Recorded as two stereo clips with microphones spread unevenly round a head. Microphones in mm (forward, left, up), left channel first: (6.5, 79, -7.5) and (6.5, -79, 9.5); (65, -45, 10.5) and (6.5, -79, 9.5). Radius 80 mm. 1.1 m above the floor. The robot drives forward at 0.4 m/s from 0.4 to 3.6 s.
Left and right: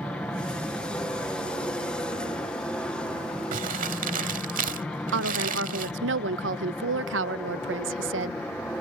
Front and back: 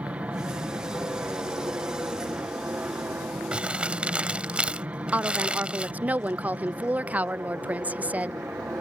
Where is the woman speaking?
80° right.